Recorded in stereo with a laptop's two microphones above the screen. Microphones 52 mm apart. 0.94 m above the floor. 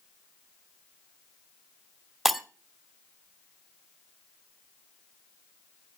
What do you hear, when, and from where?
2.2 s breaking glass: 5° right (ahead or behind), 1.9 m